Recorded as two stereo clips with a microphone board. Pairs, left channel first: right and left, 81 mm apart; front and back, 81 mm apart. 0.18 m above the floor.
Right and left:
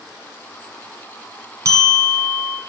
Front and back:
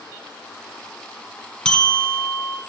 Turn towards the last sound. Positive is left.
turn(degrees=75)